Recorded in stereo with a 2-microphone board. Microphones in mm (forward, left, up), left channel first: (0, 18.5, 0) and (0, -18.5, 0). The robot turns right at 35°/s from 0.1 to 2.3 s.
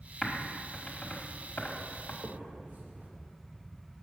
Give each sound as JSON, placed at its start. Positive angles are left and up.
{"t": 0.2, "sound": "typing on a keyboard", "side_deg": 10, "distance_m": 1.4}
{"t": 2.2, "sound": "a finger snap", "side_deg": -50, "distance_m": 1.3}